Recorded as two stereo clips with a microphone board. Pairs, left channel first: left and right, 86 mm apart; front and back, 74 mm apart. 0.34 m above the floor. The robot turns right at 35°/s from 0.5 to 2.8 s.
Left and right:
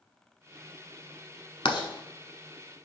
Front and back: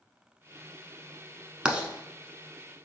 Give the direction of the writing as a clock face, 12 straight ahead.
9 o'clock.